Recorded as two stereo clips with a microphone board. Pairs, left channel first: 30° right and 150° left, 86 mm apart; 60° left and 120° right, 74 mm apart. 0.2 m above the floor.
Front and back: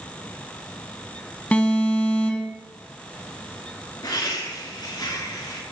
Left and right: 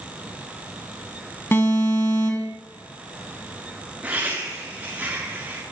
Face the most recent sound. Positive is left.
turn(degrees=-55)